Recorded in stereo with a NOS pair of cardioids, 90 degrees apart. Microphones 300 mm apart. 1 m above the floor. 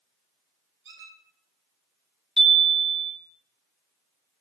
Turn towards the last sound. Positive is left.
turn(degrees=0)